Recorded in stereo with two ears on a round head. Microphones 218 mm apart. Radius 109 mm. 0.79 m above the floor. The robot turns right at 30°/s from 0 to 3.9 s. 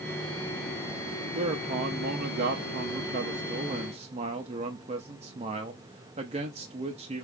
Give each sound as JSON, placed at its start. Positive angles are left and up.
{"t": 1.4, "sound": "a man speaking", "azimuth_deg": -125, "distance_m": 0.7}